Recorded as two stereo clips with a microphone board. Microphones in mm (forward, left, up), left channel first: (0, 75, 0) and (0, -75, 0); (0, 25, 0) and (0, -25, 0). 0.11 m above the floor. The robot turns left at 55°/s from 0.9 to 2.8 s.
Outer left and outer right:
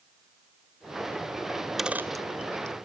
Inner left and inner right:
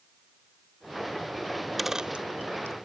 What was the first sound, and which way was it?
A dropped coin, 15° left (ahead or behind).